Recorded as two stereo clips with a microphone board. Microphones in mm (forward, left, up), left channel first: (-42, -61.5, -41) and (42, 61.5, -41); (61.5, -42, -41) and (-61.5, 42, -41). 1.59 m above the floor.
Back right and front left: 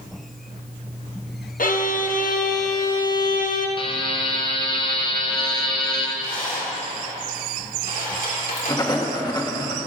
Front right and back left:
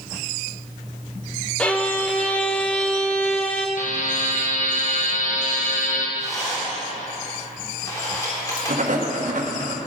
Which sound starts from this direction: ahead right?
A buzzer, at 3.8 s.